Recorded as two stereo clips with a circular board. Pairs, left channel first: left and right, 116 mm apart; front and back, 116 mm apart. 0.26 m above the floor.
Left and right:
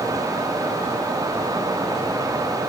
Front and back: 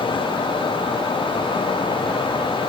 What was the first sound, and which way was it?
Only background noise.